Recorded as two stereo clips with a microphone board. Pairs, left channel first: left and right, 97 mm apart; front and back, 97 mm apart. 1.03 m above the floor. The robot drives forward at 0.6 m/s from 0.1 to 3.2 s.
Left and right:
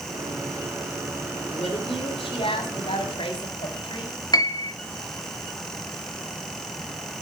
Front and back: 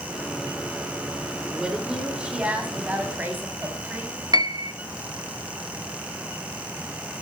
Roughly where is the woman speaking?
Left.